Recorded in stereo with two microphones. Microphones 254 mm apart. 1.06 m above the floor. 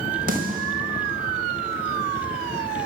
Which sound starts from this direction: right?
A snare drum, at 0.3 s.